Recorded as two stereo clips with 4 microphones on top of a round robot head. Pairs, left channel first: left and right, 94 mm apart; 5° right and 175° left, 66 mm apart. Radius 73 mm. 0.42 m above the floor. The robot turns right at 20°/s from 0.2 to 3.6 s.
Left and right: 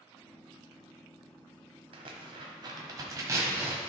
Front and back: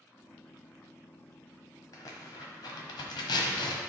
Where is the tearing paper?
55° right, 1.0 m; by 3.8 s 20° right, 1.0 m.